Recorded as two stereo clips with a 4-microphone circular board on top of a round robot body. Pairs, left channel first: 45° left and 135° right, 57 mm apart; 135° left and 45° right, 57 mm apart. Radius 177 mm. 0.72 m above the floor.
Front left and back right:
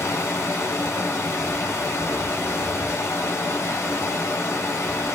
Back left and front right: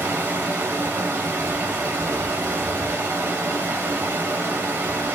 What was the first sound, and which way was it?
Running water, 10° left.